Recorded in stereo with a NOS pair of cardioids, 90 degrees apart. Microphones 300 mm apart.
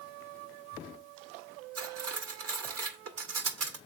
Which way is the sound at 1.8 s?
55° right.